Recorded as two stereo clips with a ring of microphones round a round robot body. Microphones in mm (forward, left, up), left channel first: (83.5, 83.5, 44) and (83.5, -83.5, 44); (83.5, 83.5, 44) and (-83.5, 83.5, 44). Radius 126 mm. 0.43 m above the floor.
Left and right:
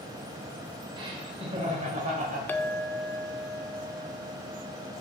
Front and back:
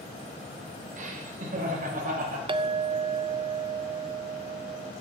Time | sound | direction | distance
1.0 | laughter | 150° right | 1.9 m
2.5 | a clink | 160° left | 0.6 m